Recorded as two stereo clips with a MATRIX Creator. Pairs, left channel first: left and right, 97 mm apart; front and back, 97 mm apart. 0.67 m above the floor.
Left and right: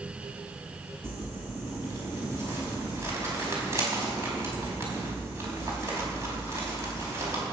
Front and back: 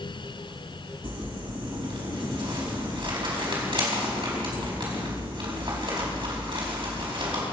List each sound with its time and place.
1.0 s crumpling: 150° right, 5 m